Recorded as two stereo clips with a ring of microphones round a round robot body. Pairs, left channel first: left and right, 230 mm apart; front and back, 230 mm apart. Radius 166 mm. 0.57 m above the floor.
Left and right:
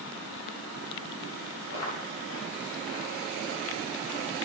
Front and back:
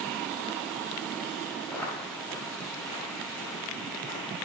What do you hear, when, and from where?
1.7 s footsteps: 80° left, 4.5 m; by 4.2 s 50° left, 4.5 m